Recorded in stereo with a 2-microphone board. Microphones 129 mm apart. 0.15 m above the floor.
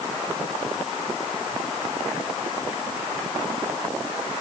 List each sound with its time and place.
Only background noise.